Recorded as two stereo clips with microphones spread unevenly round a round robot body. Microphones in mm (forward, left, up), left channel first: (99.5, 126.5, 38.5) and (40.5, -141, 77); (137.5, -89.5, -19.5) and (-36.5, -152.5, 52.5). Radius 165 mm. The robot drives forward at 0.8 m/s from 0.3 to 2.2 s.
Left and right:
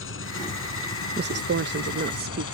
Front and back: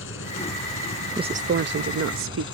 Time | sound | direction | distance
0.0 | an engine running | 35° left | ?
1.2 | a woman speaking | 70° right | ?